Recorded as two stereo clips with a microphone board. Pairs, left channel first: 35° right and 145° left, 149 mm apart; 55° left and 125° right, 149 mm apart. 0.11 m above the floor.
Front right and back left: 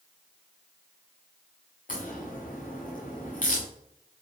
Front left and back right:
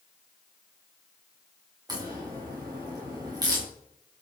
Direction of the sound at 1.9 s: 60° right.